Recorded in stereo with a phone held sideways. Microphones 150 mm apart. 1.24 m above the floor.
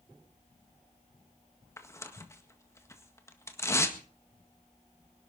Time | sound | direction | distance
1.8 | tearing paper | 20° left (ahead or behind) | 1.7 m